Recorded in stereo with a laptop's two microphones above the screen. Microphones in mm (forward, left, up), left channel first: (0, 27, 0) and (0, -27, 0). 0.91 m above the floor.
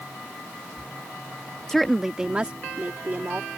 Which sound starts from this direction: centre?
A woman speaking, at 1.7 s.